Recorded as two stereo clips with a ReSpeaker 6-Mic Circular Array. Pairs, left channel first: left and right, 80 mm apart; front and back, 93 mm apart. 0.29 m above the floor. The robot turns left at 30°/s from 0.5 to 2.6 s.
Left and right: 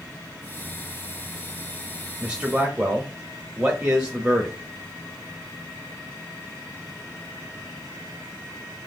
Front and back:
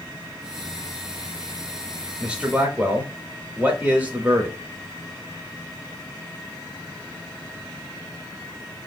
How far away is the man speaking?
About 0.9 m.